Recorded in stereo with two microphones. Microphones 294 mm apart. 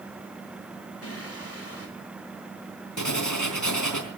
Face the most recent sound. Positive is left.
turn(degrees=85)